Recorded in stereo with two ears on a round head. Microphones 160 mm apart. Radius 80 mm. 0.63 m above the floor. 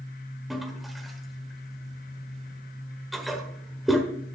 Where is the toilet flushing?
Centre (ahead or behind), 1.2 m.